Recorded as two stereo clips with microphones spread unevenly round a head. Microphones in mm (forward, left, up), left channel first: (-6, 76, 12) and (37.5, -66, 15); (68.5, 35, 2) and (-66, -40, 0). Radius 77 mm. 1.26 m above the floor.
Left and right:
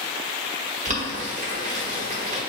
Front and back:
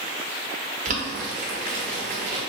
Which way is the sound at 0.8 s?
115° right.